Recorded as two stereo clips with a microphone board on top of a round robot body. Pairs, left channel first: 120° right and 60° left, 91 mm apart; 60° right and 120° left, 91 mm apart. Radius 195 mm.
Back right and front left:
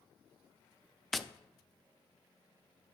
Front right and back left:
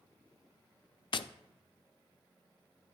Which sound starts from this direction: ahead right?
Tapping, at 1.1 s.